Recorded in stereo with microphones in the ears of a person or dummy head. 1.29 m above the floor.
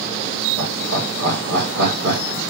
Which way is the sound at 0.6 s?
60° right (ahead or behind).